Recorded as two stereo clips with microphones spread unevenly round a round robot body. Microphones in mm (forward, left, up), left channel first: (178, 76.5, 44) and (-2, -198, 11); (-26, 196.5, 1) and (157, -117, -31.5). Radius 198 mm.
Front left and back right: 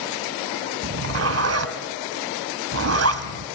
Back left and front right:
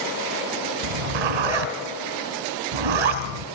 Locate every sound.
0.8 s a zipper: 80° right, 2 m